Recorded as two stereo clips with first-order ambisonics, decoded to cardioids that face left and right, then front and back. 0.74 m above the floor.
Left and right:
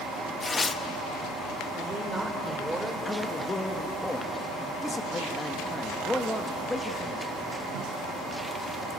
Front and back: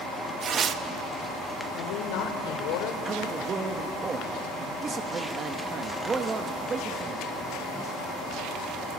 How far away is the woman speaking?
About 3 m.